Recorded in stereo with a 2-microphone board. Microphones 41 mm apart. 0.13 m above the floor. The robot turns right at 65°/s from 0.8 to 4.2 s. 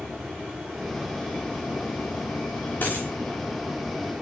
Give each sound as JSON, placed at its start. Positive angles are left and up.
{"t": 0.0, "sound": "running water", "azimuth_deg": -5, "distance_m": 4.0}
{"t": 2.8, "sound": "a dropped coin", "side_deg": 50, "distance_m": 5.5}